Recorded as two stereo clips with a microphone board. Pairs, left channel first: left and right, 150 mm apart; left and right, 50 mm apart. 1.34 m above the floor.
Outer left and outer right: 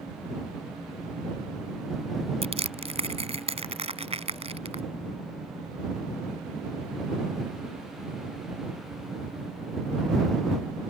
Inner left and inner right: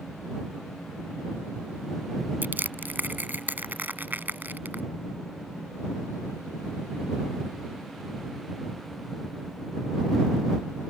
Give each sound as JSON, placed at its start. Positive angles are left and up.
{"t": 2.4, "sound": "crushing", "side_deg": -40}